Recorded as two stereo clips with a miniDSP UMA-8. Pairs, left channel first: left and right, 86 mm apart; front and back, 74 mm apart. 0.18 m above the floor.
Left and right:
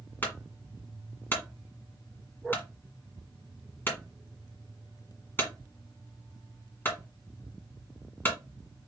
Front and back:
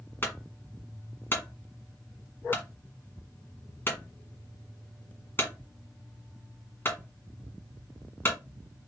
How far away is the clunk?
About 1.7 m.